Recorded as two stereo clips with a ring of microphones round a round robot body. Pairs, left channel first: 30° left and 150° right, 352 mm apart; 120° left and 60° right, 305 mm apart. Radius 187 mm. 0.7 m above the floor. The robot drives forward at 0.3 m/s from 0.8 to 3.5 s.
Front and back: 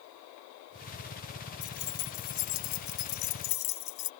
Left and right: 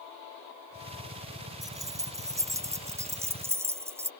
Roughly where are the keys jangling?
Ahead.